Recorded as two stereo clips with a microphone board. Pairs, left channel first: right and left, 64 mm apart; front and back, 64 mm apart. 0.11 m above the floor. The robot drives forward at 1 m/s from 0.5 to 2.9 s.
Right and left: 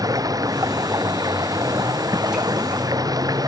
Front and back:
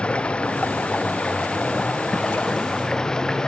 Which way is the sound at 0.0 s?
75° left.